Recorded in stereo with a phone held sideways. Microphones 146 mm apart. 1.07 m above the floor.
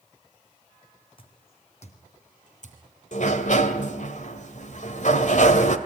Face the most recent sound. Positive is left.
turn(degrees=60)  # may be behind; listen again after turning